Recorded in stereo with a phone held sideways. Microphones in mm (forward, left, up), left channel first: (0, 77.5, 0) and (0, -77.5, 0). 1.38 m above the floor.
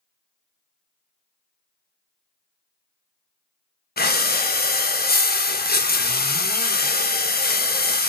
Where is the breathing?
85° left, 0.5 m.